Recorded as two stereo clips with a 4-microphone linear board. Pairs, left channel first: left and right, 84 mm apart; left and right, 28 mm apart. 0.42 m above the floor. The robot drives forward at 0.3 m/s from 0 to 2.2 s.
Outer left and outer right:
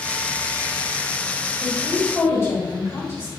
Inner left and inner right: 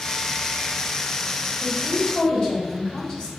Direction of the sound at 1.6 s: 35° left (ahead or behind).